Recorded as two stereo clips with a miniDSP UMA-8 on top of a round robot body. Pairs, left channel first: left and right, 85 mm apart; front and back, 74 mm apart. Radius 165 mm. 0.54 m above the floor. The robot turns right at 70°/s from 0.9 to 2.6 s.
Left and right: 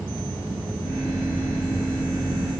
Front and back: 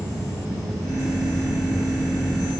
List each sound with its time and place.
Only background noise.